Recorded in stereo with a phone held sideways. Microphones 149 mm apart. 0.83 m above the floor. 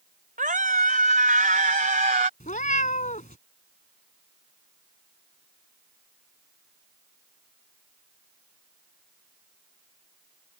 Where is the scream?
60° right (ahead or behind).